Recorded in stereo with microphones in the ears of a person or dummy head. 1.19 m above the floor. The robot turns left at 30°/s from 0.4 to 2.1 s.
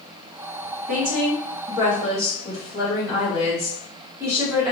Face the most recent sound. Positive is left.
turn(degrees=-165)